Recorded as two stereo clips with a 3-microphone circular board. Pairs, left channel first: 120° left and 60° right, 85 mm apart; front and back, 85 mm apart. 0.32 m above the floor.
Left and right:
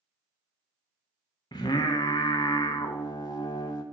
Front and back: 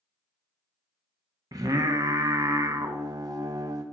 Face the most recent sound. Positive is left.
turn(degrees=145)